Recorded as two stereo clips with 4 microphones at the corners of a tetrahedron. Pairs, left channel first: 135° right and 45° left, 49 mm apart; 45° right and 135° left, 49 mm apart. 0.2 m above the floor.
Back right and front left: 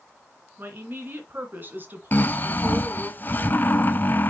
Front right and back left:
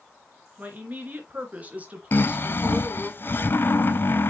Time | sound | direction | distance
0.6 | a woman speaking | 85° left | 2.5 m
2.1 | snoring | 85° right | 0.6 m